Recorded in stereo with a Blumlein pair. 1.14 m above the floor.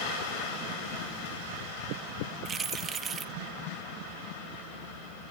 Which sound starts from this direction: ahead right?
Keys jangling, at 2.5 s.